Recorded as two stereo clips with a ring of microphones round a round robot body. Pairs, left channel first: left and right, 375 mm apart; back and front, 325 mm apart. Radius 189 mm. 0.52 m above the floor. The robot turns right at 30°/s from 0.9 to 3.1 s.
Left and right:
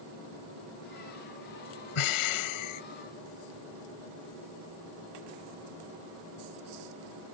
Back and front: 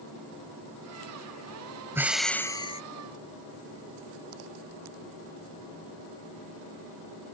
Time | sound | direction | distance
1.9 | breathing | 80° left | ?